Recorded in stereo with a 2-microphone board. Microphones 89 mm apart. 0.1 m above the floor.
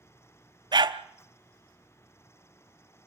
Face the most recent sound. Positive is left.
turn(degrees=-55)  # may be behind; listen again after turning